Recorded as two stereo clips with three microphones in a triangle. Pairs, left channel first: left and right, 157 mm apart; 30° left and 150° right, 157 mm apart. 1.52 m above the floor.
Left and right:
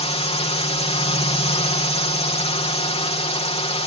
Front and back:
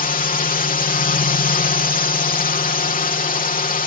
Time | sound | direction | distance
0.0 | a drone | 45° left | ?